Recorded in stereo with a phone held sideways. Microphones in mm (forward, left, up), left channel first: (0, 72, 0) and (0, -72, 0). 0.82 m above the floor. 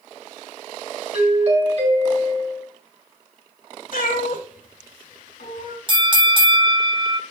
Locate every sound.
1.1 s a doorbell: 50° right (ahead or behind), 3 m
3.9 s a cat meowing: 75° left (ahead or behind), 2.5 m
5.9 s a bell: 35° right (ahead or behind), 0.8 m